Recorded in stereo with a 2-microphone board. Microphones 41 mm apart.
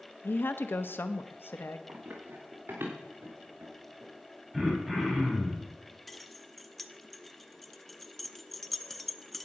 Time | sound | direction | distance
0.2 | a woman speaking | 60° left (ahead or behind) | 0.8 m
1.9 | running footsteps | 50° right (ahead or behind) | 3.5 m
4.5 | throat clearing | centre (ahead or behind) | 4 m
6.1 | keys jangling | 5° left (ahead or behind) | 0.7 m